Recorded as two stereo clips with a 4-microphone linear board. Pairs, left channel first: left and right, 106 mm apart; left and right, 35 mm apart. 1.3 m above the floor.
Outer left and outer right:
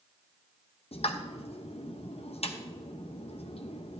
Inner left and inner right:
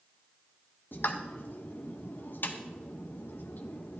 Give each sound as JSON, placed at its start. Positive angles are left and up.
{"t": 0.9, "sound": "a pop", "side_deg": 65, "distance_m": 0.7}